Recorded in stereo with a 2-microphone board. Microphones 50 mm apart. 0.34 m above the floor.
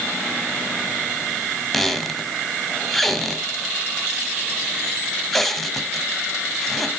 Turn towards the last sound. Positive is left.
turn(degrees=5)  # may be behind; listen again after turning